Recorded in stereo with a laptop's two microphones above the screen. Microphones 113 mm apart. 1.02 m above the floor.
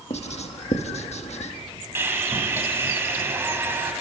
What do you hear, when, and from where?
0.1 s writing: 70° left (ahead or behind), 1.2 m
1.9 s sawing: 20° right (ahead or behind), 2 m